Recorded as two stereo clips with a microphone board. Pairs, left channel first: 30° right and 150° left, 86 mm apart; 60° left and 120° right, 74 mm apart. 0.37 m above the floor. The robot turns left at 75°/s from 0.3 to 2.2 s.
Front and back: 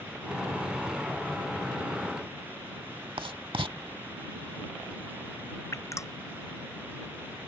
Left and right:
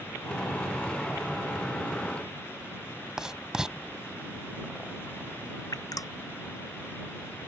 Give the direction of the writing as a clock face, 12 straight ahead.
7 o'clock.